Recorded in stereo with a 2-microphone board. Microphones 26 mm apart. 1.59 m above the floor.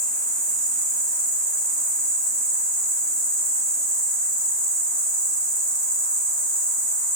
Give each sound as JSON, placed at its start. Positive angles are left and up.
{"t": 0.0, "sound": "an insect", "side_deg": 30, "distance_m": 1.0}